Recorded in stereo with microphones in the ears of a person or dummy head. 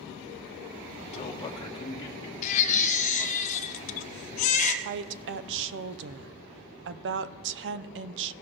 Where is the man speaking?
40° left (ahead or behind), 1.1 m; by 3.4 s 20° left (ahead or behind), 3 m.